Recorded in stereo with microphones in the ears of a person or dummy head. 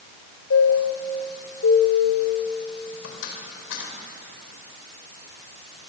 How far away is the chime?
About 4.5 m.